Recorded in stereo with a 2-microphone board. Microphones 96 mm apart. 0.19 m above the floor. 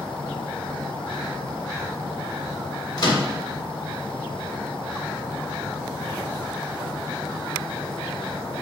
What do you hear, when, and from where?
3.0 s a microwave: 50° left (ahead or behind), 1.3 m